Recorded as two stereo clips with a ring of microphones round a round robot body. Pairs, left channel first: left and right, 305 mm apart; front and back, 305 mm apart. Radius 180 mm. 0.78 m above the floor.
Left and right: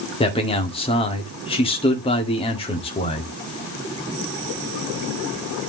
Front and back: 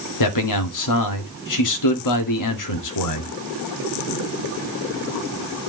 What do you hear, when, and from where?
0.2 s a man speaking: 15° left, 2 m